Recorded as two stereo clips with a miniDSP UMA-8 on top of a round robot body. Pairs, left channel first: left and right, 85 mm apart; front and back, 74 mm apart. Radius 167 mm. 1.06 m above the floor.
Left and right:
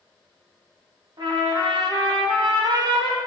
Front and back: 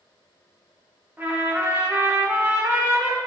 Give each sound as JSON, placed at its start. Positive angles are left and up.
{"t": 1.2, "sound": "a trumpet", "azimuth_deg": -115, "distance_m": 2.5}